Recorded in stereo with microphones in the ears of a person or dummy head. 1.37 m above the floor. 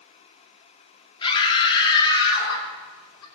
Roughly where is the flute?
No flute in this recording.